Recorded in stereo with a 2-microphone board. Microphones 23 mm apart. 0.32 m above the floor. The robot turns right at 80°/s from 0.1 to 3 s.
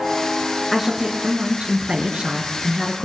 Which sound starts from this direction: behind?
A woman speaking, at 0.7 s.